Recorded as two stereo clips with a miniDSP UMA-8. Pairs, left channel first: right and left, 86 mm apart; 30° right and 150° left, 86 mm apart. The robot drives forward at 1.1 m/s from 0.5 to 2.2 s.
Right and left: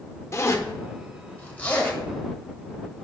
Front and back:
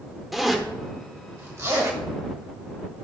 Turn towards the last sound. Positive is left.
turn(degrees=-165)